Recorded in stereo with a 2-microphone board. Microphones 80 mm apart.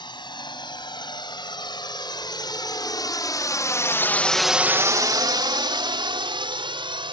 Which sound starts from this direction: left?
A drone, at 0.0 s.